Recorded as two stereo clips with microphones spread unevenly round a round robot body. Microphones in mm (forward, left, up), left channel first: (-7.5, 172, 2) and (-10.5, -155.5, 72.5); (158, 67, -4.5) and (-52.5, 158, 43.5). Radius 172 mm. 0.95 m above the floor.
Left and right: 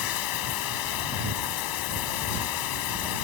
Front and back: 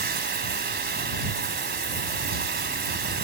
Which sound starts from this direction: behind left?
Running water, at 0.0 s.